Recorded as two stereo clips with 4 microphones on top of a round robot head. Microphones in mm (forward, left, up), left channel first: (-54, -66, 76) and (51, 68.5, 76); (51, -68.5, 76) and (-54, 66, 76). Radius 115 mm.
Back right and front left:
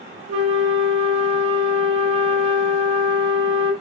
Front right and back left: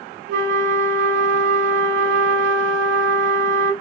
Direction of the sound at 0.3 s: 110° left.